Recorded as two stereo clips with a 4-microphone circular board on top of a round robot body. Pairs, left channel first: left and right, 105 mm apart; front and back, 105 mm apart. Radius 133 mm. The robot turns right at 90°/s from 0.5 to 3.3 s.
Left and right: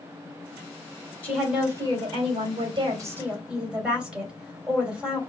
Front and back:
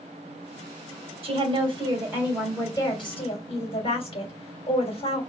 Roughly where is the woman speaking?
Behind.